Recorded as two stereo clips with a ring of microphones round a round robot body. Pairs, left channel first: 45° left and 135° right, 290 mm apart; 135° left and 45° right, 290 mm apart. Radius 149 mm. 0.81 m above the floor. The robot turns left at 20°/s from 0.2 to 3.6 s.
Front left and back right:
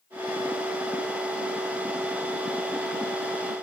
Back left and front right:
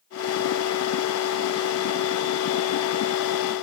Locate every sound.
Only background noise.